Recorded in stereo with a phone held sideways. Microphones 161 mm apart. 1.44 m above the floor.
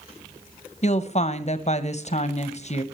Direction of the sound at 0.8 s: 45° left (ahead or behind).